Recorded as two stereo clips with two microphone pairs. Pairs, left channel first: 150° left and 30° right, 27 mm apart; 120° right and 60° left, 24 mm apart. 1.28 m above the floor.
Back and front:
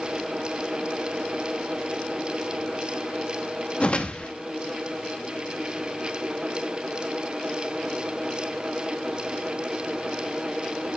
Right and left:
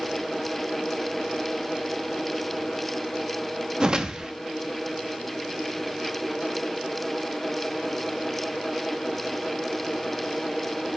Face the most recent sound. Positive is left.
turn(degrees=110)